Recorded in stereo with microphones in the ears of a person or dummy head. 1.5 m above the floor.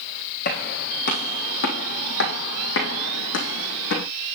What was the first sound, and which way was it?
Footsteps, 50° left (ahead or behind).